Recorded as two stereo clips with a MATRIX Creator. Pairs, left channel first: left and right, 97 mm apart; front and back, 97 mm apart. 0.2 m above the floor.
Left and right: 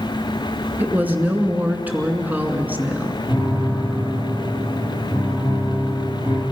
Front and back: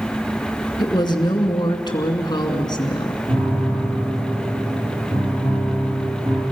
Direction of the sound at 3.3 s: 155° right.